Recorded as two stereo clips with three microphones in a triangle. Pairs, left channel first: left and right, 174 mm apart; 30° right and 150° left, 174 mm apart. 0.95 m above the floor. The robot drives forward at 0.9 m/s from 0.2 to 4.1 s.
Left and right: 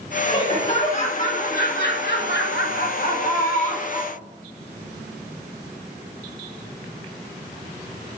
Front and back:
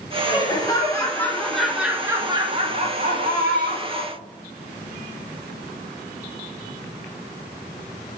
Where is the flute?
No flute in this recording.